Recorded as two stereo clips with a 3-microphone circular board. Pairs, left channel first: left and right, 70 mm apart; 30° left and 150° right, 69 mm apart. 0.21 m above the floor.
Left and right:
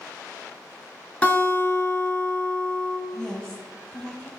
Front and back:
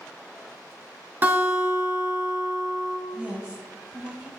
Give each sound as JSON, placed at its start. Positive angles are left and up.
{"t": 1.2, "sound": "a guitar", "azimuth_deg": 155, "distance_m": 2.5}
{"t": 3.1, "sound": "a woman speaking", "azimuth_deg": 160, "distance_m": 1.4}